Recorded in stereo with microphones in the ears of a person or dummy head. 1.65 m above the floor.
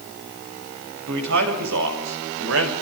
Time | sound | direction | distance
1.1 | a man speaking | 70° right (ahead or behind) | 7 m